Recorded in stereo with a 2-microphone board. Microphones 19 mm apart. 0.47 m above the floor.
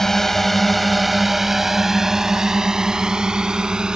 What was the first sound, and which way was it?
A drone, 20° left (ahead or behind).